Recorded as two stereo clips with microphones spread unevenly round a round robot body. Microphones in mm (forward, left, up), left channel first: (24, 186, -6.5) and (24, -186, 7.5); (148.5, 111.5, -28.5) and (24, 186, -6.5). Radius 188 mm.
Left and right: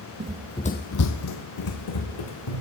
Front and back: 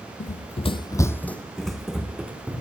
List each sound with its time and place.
0.2 s running footsteps: 30° right, 0.6 m; by 2.6 s 70° left, 2 m